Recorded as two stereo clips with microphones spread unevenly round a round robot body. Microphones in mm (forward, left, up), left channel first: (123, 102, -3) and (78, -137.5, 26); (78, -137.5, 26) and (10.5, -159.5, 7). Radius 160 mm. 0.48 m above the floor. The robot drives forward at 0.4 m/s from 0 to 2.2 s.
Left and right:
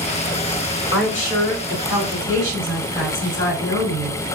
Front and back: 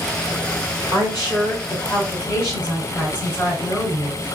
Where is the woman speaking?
90° left, 1.8 m; by 4.2 s 115° left, 1.8 m.